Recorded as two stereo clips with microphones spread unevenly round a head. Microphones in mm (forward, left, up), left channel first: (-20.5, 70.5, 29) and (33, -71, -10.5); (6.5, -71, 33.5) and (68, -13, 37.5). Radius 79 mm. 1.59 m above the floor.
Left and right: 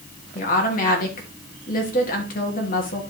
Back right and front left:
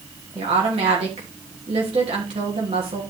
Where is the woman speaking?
75° left, 3 m.